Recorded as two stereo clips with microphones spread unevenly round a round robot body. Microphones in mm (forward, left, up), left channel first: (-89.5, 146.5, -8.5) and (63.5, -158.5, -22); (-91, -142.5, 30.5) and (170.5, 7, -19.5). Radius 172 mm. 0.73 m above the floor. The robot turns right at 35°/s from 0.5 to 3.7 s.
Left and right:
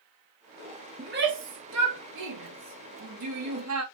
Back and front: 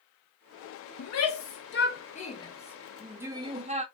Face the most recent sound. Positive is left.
turn(degrees=-25)